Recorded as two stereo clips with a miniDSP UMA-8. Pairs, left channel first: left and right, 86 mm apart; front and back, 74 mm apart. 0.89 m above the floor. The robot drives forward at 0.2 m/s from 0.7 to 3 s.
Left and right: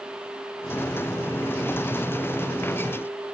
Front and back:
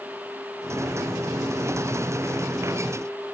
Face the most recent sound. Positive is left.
No sound to turn to.